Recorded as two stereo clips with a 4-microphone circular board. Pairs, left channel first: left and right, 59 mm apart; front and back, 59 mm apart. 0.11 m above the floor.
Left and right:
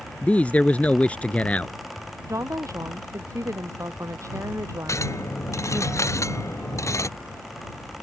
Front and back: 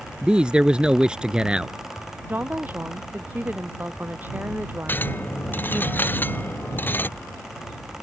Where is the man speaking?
125° left.